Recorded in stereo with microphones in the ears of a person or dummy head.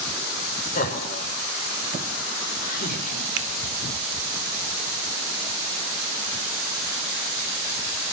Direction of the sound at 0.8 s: 45° left (ahead or behind).